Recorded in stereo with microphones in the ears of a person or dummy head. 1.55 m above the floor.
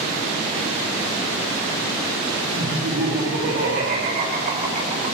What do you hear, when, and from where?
2.6 s laughter: 75° right (ahead or behind), 2.5 m; by 5.1 s 35° right (ahead or behind), 3 m